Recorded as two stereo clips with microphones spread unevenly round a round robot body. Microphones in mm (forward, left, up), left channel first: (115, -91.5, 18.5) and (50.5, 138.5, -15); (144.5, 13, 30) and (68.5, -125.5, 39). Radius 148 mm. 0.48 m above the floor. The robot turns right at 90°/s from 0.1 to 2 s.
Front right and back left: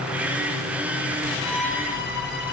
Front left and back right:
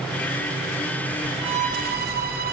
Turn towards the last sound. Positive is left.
turn(degrees=-135)